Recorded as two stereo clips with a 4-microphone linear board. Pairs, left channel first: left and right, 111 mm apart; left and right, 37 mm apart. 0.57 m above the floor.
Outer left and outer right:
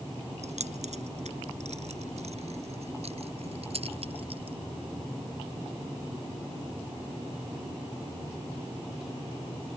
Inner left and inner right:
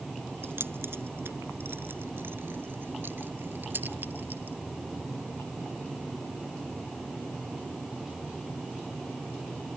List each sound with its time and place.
0.4 s keys jangling: 85° right; by 4.6 s 60° right (ahead or behind)